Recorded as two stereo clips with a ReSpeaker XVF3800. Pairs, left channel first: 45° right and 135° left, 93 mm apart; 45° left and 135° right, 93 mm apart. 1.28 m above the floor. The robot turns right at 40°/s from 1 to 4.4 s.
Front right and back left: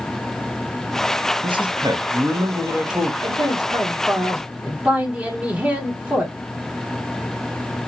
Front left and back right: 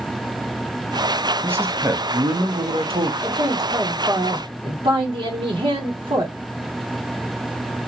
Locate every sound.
1.4 s a man speaking: 155° left, 1.0 m; by 3.1 s 140° right, 1.0 m
3.2 s a man speaking: 160° left, 1.3 m; by 6.3 s 155° right, 1.3 m